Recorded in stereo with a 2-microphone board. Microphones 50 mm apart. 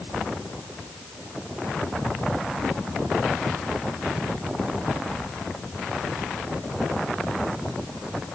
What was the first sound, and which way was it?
Only background noise.